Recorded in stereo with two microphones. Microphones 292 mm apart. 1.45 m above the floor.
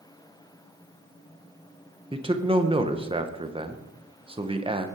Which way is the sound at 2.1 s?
20° right (ahead or behind).